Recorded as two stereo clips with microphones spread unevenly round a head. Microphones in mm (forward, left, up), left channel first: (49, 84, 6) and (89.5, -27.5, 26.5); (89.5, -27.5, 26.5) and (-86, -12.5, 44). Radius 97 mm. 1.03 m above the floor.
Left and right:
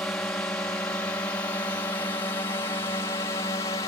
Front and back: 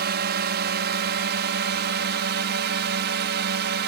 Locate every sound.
0.0 s a drone: 170° right; by 3.9 s 170° left